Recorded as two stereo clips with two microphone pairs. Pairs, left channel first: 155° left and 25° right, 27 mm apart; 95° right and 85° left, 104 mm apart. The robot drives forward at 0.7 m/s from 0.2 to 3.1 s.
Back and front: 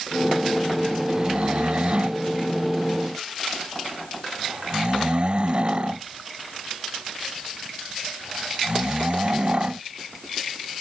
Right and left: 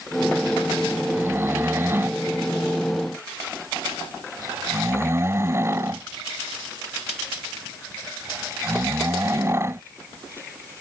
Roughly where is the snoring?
Ahead.